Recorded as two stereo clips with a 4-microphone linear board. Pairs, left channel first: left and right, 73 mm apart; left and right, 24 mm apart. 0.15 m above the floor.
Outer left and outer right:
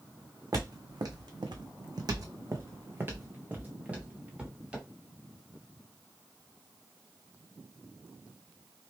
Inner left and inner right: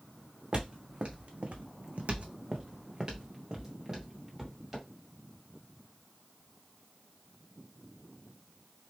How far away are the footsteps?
About 1.0 m.